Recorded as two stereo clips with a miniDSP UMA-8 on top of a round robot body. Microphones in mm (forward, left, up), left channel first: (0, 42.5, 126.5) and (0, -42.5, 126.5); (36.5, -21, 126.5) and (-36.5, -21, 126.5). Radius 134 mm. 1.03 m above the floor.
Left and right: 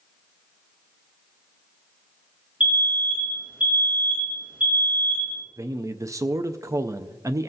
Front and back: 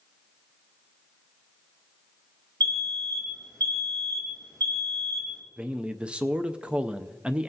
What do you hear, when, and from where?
2.6 s an alarm: 165° right, 5 m
5.6 s a man speaking: 110° right, 0.5 m